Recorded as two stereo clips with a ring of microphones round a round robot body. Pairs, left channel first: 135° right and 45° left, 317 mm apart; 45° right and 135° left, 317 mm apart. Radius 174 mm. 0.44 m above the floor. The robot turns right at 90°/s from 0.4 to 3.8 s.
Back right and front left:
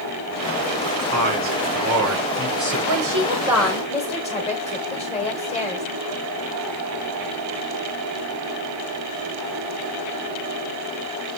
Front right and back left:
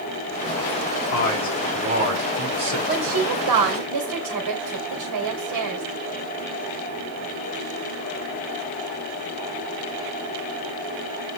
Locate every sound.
1.1 s a man speaking: straight ahead, 6.5 m; by 2.8 s 150° left, 6.5 m
2.9 s a woman speaking: 70° left, 2.5 m; by 5.8 s 155° left, 2.5 m